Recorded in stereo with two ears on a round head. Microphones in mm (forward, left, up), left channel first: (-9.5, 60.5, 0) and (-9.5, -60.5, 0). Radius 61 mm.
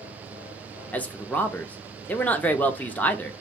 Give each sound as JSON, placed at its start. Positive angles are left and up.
{"t": 0.9, "sound": "a man speaking", "side_deg": 10, "distance_m": 0.5}